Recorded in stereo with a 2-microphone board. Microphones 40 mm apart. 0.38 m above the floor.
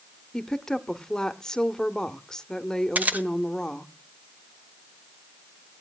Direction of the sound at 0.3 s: 10° left (ahead or behind).